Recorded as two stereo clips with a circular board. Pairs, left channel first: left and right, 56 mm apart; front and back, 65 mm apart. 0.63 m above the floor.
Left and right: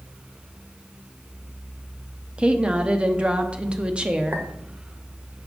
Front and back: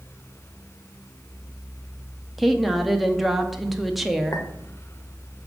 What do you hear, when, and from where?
2.4 s a woman speaking: 85° right, 0.8 m
4.3 s a clink: 40° right, 1.1 m